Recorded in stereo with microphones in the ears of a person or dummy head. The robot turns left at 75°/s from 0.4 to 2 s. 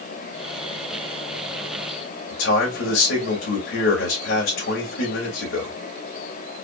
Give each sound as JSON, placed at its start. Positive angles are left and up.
{"t": 2.3, "sound": "a man speaking", "side_deg": 65, "distance_m": 2.5}